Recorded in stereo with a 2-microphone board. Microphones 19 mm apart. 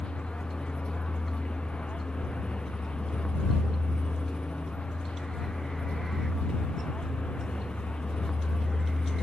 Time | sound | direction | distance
0.0 | a vehicle | 85° left | ?